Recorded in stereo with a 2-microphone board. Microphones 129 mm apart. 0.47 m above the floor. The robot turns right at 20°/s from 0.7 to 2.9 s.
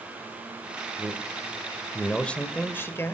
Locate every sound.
1.0 s a man speaking: 15° right, 2.0 m; by 3.1 s 20° left, 2.0 m